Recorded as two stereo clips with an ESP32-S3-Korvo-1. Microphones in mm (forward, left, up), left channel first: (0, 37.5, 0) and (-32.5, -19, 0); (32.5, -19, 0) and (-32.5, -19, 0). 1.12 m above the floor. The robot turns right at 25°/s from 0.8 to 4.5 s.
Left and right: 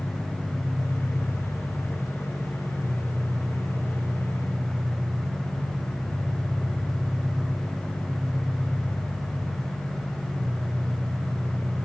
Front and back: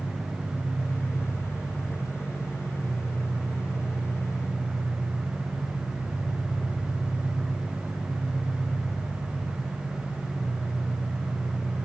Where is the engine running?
70° right, 3.5 m; by 11.9 s 25° left, 3.5 m.